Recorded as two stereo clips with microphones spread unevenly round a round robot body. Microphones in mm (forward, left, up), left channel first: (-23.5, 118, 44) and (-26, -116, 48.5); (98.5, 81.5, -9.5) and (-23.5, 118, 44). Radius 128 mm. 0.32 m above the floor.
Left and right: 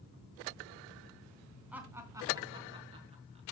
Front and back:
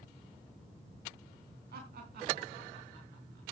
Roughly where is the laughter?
Behind.